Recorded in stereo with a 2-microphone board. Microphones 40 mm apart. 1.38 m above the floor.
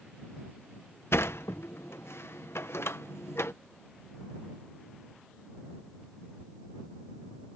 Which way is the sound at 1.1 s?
75° left (ahead or behind).